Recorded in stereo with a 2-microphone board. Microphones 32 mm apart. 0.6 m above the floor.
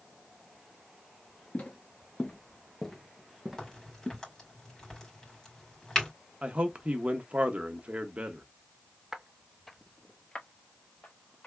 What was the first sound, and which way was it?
Footsteps, 40° left (ahead or behind).